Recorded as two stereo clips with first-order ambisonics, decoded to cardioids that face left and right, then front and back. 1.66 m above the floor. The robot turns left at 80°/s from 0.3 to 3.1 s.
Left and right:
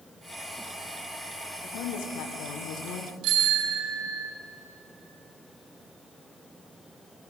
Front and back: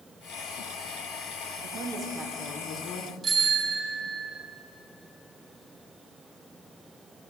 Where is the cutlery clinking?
I don't hear cutlery clinking.